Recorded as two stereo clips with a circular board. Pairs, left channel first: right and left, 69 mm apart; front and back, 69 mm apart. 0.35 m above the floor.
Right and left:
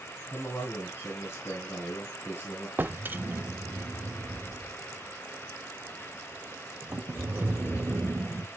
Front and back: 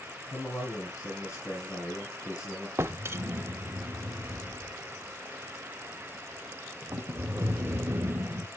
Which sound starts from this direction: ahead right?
A man speaking, at 0.3 s.